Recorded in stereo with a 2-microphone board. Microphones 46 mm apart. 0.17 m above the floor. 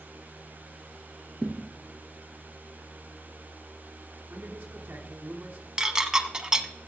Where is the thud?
Centre (ahead or behind), 1.3 m.